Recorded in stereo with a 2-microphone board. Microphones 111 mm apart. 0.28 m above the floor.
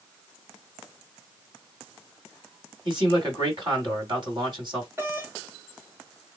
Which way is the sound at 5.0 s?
20° right (ahead or behind).